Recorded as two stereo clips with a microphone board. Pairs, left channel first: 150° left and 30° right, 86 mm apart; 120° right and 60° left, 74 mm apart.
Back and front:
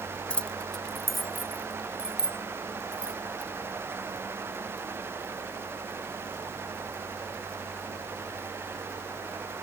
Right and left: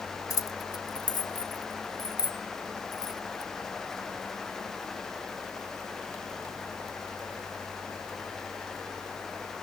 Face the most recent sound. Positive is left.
turn(degrees=-110)